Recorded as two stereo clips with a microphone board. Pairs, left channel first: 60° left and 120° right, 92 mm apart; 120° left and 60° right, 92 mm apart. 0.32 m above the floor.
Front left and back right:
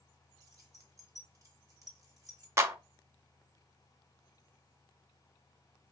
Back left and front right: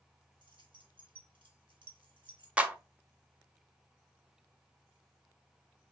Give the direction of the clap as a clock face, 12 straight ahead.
4 o'clock.